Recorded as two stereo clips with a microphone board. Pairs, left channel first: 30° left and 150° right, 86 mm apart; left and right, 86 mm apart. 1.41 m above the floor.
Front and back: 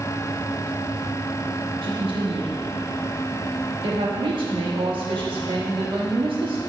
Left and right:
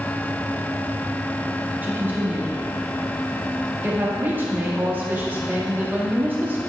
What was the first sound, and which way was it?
A woman speaking, 160° right.